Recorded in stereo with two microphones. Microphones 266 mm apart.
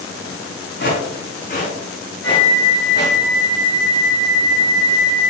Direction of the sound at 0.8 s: 45° left (ahead or behind).